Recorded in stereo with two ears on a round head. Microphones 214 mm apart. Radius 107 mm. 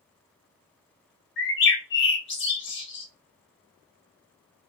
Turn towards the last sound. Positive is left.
turn(degrees=50)  # may be behind; listen again after turning